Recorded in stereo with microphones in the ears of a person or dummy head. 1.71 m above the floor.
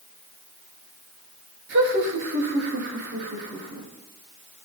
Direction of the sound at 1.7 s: 60° right (ahead or behind).